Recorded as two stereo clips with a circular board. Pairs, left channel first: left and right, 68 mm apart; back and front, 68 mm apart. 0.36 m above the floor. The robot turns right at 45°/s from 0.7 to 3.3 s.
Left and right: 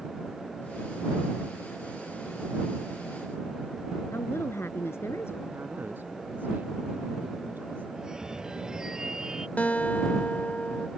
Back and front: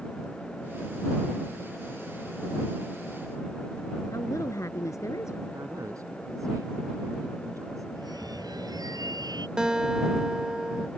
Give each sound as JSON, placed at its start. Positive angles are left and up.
{"t": 4.1, "sound": "a woman speaking", "azimuth_deg": 140}
{"t": 5.5, "sound": "a man speaking", "azimuth_deg": -30}
{"t": 8.0, "sound": "a phone ringing", "azimuth_deg": -10}
{"t": 9.6, "sound": "a guitar", "azimuth_deg": 60}